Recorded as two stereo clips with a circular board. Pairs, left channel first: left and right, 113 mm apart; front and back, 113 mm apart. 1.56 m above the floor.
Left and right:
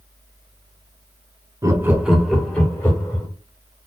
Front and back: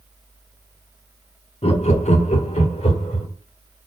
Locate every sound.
1.6 s laughter: 30° right, 0.6 m; by 3.3 s 25° left, 1.3 m